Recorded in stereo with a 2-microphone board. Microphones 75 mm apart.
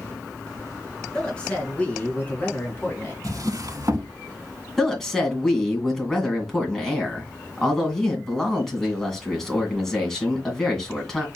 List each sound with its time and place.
1.1 s a woman speaking: 10° left (ahead or behind), 2.5 m; by 3.1 s 30° left (ahead or behind), 3 m
3.2 s a drawer: 60° right (ahead or behind), 0.7 m
4.8 s a woman speaking: 5° left (ahead or behind), 2 m